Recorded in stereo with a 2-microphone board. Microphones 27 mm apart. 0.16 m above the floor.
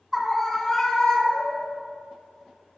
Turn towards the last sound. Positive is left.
turn(degrees=35)  # may be behind; listen again after turning